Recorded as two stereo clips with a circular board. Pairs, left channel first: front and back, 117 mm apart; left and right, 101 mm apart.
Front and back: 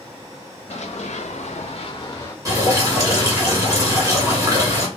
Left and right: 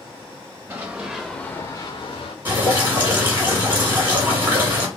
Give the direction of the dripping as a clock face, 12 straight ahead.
5 o'clock.